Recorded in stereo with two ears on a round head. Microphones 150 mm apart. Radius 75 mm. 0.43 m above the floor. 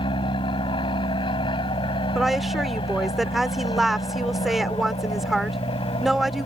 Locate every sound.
0.0 s an aircraft: 30° left (ahead or behind)
2.1 s a woman speaking: centre (ahead or behind)